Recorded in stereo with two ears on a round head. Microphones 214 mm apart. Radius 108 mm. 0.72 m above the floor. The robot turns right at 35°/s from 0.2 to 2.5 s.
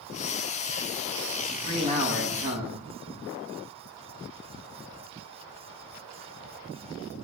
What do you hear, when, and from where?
1.4 s a man speaking: 165° right, 6.5 m; by 2.8 s 130° right, 6.5 m